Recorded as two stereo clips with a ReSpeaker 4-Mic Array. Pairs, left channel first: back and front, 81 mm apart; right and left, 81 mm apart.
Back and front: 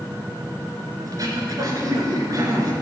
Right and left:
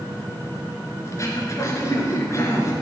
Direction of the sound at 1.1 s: 40° right.